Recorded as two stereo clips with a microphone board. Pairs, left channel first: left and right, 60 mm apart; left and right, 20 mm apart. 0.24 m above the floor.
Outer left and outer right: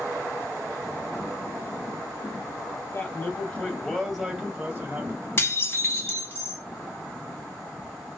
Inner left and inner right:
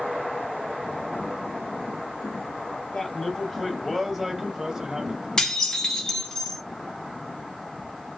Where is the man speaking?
35° left (ahead or behind), 1.1 m; by 5.3 s 35° right (ahead or behind), 1.1 m.